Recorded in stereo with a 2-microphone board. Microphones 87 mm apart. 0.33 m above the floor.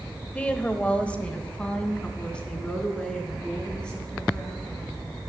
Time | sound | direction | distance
0.3 | a woman speaking | 15° left (ahead or behind) | 1.0 m